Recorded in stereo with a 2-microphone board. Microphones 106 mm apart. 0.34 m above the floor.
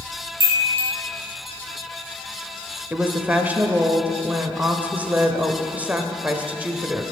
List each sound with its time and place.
0.4 s a chime: 25° right (ahead or behind), 3.5 m
2.9 s a woman speaking: 15° right (ahead or behind), 0.9 m